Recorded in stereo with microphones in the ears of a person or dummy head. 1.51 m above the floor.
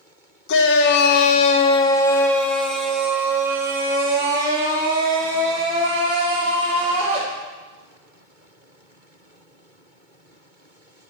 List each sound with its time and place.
0.5 s a shout: 65° left (ahead or behind), 1.0 m; by 7.2 s 35° right (ahead or behind), 3.5 m